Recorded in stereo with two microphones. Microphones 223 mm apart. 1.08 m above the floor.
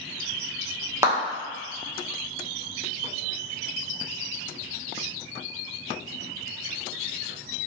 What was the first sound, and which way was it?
A clap, 15° right (ahead or behind).